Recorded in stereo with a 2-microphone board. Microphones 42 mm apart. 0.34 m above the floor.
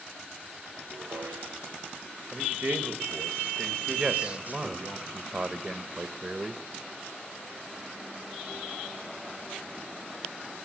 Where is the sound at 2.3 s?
40° right (ahead or behind), 1.8 m.